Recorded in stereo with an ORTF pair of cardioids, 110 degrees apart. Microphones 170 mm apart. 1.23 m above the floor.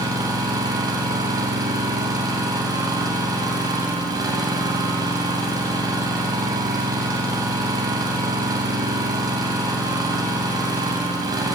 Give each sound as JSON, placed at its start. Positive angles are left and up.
{"t": 0.0, "sound": "an engine running", "azimuth_deg": -20, "distance_m": 8.0}